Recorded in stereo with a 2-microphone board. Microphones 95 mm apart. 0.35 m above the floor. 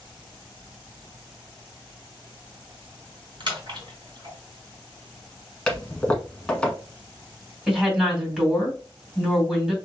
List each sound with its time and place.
3.4 s a splash: 55° right (ahead or behind), 2.5 m
5.7 s a toilet flushing: 10° left (ahead or behind), 1.1 m
7.7 s a woman speaking: 5° right (ahead or behind), 2.5 m